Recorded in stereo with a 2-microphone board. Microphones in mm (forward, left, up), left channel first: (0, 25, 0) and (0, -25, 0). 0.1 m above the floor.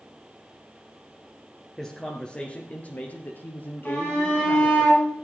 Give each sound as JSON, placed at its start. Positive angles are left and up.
{"t": 1.8, "sound": "a man speaking", "side_deg": 5, "distance_m": 1.6}
{"t": 3.9, "sound": "a shout", "side_deg": 20, "distance_m": 7.5}